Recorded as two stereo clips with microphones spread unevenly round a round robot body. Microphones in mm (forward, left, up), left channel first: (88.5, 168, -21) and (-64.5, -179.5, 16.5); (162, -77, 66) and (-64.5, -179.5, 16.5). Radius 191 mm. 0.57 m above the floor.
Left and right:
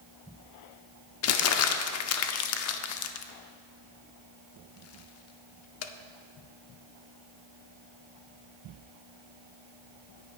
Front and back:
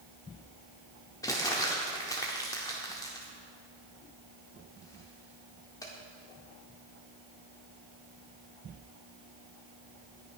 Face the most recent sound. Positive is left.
turn(degrees=110)